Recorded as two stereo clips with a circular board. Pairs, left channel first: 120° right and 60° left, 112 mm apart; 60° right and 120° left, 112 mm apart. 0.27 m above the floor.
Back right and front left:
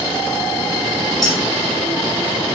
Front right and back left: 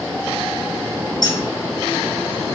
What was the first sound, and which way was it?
Keys jangling, 85° right.